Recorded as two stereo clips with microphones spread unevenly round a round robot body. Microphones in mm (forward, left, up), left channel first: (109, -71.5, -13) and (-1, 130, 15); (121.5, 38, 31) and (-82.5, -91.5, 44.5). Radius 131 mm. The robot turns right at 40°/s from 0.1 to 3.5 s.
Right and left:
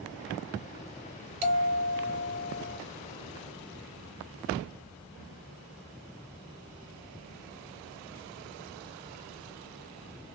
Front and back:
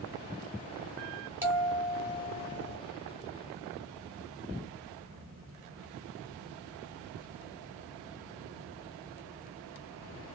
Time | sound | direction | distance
1.4 | a bell | 130° left | 1.1 m